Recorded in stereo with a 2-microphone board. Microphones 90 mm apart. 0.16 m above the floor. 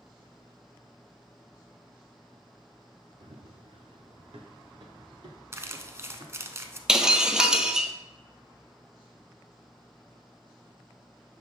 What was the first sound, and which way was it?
Running footsteps, 80° right.